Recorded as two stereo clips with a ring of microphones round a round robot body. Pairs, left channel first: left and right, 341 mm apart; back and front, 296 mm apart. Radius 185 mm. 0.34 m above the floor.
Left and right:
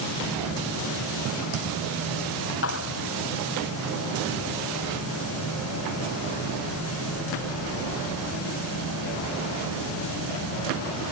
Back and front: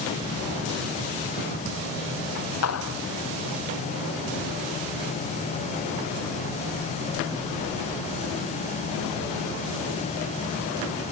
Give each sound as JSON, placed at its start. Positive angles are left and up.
{"t": 2.6, "sound": "a clap", "azimuth_deg": 145}